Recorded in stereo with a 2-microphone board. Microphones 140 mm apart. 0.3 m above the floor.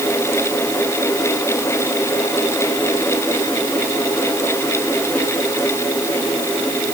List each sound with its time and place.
Only background noise.